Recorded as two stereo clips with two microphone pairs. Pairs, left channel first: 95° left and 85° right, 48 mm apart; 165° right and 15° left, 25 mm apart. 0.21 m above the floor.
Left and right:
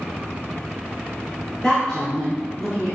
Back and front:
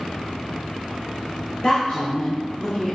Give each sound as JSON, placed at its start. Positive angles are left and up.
{"t": 1.6, "sound": "a woman speaking", "azimuth_deg": 155, "distance_m": 3.0}